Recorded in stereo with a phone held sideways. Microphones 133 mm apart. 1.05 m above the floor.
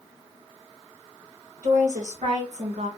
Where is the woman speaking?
75° right (ahead or behind), 1.6 m; by 2.9 s 50° right (ahead or behind), 0.8 m.